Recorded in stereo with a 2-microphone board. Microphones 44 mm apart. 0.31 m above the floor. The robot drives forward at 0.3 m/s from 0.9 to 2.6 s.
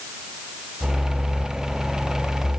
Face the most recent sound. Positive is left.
No sound to turn to.